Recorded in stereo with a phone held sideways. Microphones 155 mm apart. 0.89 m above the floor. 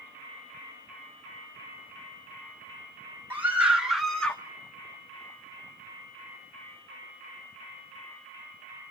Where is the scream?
15° right (ahead or behind), 2 m; by 4.4 s 10° left (ahead or behind), 1.4 m.